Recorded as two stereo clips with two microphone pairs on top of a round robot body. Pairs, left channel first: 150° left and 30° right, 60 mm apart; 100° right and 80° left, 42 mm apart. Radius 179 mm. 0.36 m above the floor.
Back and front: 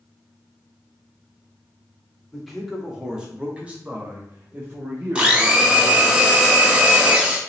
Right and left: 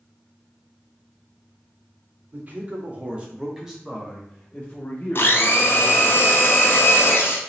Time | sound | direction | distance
2.3 | a man speaking | 70° left | 1.5 m
5.2 | a blender | 100° right | 1.0 m